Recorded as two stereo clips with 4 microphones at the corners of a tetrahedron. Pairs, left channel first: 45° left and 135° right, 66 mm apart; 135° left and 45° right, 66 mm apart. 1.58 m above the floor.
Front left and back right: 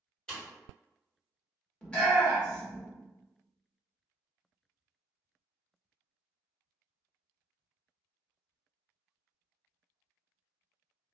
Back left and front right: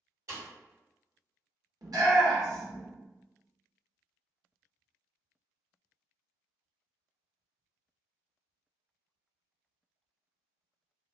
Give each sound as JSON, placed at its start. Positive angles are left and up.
{"t": 0.3, "sound": "a pop", "azimuth_deg": -30, "distance_m": 1.6}
{"t": 1.8, "sound": "a shout", "azimuth_deg": -30, "distance_m": 1.4}